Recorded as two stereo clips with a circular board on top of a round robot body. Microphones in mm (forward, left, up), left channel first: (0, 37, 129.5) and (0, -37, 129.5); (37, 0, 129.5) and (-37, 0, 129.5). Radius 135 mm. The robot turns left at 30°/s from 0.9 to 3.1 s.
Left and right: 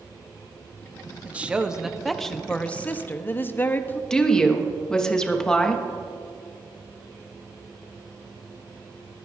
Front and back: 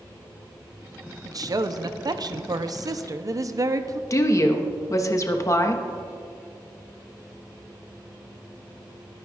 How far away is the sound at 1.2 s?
About 0.8 m.